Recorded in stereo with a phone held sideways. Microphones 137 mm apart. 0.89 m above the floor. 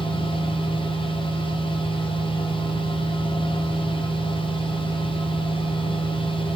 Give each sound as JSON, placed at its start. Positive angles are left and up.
{"t": 0.0, "sound": "a machine running", "side_deg": 40, "distance_m": 0.8}